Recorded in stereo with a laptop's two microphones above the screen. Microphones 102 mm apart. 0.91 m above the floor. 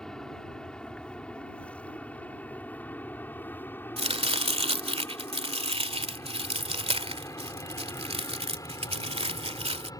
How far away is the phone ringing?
I don't hear a phone ringing.